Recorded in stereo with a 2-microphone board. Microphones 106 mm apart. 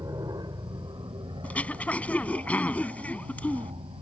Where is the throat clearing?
15° left (ahead or behind).